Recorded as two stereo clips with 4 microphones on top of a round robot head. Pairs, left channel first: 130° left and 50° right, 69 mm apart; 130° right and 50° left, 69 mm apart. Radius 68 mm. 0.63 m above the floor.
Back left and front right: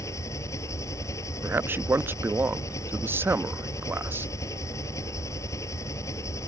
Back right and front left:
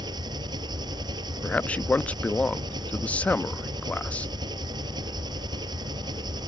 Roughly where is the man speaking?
Right.